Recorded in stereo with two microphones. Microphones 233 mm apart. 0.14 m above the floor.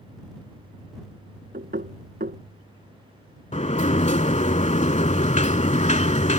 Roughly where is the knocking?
Right.